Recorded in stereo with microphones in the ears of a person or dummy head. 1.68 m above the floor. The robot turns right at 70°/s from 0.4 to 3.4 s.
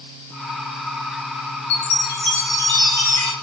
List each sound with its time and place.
1.7 s a chime: 100° left, 1.6 m; by 3.3 s 145° right, 1.6 m